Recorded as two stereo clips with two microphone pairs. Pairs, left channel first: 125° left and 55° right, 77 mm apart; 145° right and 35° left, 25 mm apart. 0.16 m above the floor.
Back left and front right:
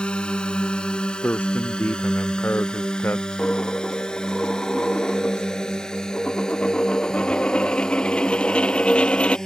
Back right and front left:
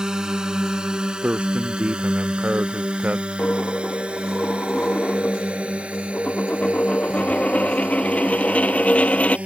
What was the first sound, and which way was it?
A drone, 60° left.